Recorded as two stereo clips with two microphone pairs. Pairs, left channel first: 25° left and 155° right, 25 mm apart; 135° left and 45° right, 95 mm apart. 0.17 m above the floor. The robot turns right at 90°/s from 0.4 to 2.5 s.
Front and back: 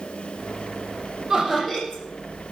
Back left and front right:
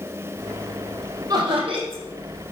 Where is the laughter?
90° right, 5 m; by 2.0 s 25° right, 5 m.